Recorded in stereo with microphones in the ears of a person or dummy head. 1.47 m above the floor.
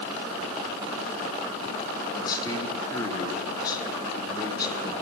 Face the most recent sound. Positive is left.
turn(degrees=20)  # may be behind; listen again after turning